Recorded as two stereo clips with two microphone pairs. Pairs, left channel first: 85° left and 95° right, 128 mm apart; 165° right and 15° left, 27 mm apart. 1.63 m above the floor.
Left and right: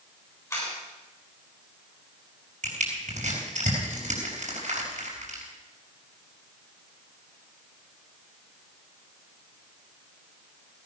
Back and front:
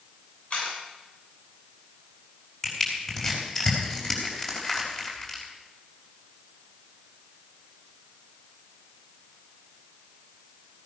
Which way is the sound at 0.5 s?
155° left.